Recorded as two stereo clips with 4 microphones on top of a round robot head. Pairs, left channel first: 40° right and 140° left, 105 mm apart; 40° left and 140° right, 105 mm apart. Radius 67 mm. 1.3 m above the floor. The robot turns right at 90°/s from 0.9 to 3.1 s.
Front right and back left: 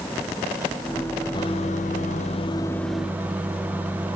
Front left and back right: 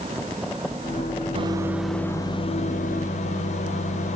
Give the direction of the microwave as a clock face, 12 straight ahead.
3 o'clock.